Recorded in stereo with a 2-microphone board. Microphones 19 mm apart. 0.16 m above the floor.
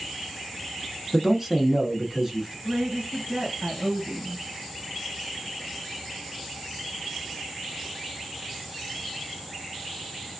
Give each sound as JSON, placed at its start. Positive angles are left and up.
{"t": 1.1, "sound": "a man speaking", "side_deg": -25, "distance_m": 1.1}
{"t": 2.6, "sound": "a woman speaking", "side_deg": -50, "distance_m": 1.8}